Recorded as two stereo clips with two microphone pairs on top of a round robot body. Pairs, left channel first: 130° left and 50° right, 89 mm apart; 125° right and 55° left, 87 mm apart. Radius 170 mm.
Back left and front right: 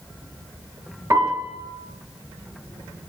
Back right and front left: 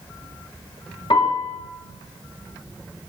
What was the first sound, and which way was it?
A piano, 105° right.